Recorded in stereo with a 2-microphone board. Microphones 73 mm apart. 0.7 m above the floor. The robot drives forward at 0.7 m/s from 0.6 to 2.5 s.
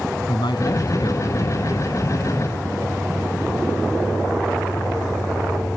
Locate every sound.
0.3 s a man speaking: 75° left (ahead or behind); by 2.0 s 80° left